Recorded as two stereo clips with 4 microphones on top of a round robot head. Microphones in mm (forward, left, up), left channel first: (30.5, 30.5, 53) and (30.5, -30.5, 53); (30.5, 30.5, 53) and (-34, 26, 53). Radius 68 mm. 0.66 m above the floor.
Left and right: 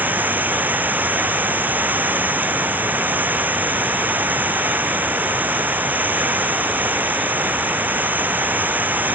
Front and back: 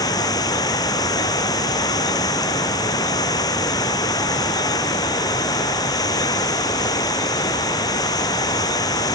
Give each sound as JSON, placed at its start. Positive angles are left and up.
{"t": 0.0, "sound": "running water", "azimuth_deg": -30}